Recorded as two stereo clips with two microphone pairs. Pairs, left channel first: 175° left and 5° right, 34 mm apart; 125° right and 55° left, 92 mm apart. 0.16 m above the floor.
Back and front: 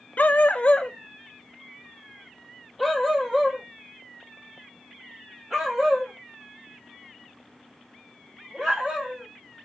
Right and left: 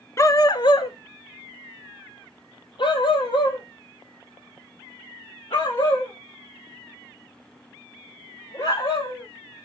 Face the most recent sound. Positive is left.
turn(degrees=-80)